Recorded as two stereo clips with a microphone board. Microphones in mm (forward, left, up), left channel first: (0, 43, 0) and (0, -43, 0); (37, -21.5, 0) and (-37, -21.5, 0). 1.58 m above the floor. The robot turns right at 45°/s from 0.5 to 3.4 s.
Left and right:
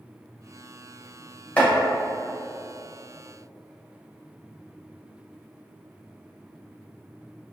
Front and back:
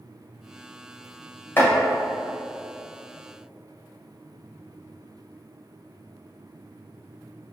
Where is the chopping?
30° left, 1.5 m; by 1.7 s 35° left, 1.5 m.